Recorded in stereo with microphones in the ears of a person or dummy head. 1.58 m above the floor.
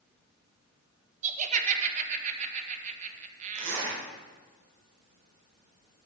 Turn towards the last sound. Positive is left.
turn(degrees=-75)  # may be behind; listen again after turning